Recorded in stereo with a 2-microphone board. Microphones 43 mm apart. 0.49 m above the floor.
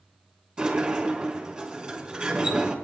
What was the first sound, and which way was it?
A sliding door, 25° right (ahead or behind).